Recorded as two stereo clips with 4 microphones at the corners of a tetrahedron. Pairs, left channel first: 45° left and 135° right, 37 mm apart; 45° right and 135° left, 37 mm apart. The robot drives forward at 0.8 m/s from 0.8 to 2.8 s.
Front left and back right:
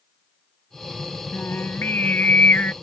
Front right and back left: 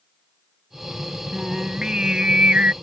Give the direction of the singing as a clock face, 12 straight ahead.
10 o'clock.